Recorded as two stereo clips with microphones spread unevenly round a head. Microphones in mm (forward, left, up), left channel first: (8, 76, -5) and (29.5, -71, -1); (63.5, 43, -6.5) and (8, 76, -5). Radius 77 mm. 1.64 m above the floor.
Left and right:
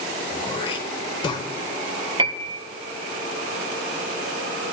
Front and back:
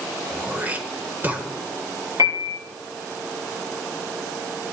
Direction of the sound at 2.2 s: 145° right.